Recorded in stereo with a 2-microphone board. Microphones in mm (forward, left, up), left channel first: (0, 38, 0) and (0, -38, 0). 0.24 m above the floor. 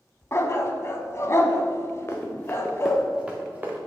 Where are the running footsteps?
35° left (ahead or behind), 1.5 m; by 3.8 s 25° right (ahead or behind), 1.9 m.